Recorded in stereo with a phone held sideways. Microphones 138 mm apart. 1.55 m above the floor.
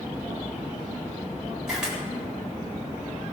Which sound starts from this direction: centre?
A camera shutter, at 1.7 s.